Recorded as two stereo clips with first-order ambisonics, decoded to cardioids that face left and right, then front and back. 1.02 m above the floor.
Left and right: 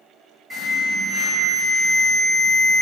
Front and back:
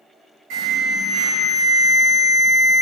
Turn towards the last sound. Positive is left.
turn(degrees=175)